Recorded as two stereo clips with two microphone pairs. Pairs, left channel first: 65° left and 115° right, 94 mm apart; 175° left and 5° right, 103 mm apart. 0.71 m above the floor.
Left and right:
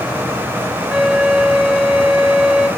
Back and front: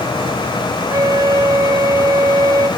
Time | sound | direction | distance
0.9 | a flute | 30° right | 0.7 m